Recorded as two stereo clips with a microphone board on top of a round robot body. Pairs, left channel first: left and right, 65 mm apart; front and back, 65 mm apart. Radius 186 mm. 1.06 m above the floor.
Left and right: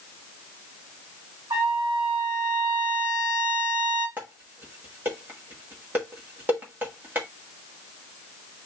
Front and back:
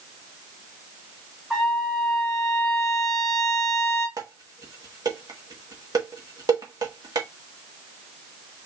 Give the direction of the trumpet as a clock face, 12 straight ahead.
3 o'clock.